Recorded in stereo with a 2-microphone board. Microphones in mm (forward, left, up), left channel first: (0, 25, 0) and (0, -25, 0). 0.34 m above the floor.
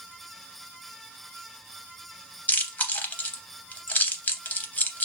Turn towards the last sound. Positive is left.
turn(degrees=35)  # may be behind; listen again after turning